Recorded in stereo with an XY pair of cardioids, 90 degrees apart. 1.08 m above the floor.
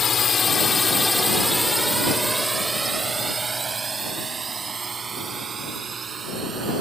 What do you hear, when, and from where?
0.0 s a drone: 50° left; by 6.8 s 55° right